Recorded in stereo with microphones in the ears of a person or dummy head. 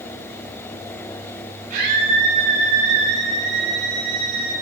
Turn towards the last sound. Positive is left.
turn(degrees=-60)  # may be behind; listen again after turning